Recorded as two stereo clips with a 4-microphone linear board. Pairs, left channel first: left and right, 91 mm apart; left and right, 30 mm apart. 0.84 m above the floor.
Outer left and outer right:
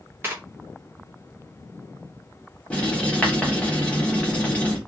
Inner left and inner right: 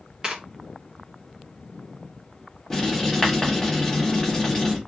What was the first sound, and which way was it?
Tearing paper, 25° right (ahead or behind).